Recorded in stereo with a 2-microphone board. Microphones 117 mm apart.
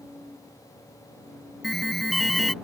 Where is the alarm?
Centre (ahead or behind).